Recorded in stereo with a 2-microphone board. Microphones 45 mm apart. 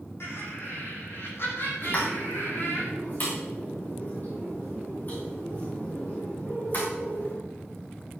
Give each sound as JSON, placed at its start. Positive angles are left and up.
{"t": 0.2, "sound": "laughter", "side_deg": 65, "distance_m": 8.0}
{"t": 1.8, "sound": "a pop", "side_deg": 45, "distance_m": 6.0}